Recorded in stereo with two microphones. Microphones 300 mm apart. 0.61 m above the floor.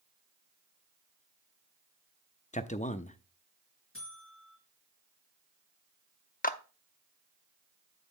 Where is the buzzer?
45° left (ahead or behind), 4 m.